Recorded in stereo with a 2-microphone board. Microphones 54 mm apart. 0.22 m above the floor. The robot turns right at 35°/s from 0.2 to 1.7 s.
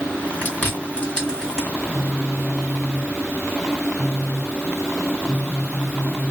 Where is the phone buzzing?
15° right (ahead or behind), 0.7 m.